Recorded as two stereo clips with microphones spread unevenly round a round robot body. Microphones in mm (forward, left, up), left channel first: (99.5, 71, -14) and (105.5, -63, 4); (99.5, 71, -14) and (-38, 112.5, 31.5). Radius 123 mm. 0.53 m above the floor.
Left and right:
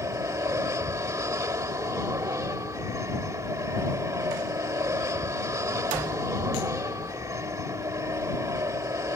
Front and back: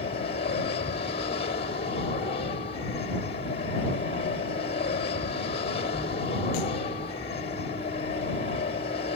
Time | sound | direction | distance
0.0 | an aircraft | 25° right | ?